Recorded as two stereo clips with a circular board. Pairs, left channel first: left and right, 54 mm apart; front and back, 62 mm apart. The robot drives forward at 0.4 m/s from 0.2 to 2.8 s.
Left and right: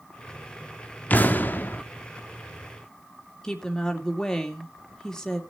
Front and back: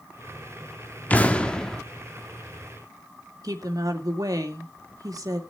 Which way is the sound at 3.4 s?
170° left.